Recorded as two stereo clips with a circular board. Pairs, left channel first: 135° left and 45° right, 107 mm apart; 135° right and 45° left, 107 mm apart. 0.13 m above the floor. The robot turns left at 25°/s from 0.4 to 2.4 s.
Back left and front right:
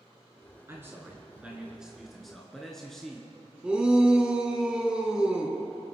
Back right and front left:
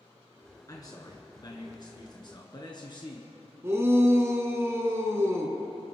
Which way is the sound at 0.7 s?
100° right.